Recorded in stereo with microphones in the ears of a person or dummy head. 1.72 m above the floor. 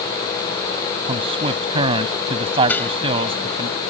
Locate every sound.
1.1 s a man speaking: 30° right (ahead or behind)
2.7 s dishes clattering: 10° left (ahead or behind)